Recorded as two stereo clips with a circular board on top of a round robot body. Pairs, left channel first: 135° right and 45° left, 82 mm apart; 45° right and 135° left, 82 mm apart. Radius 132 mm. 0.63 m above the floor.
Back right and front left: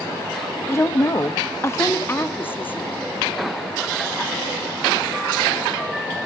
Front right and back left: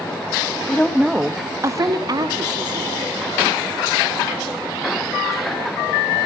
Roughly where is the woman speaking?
Right.